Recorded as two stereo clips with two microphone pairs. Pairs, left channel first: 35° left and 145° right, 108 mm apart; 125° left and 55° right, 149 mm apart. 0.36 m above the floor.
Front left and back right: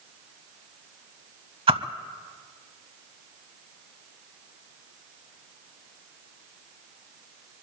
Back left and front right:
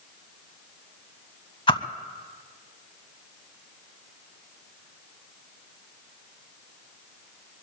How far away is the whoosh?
About 0.6 m.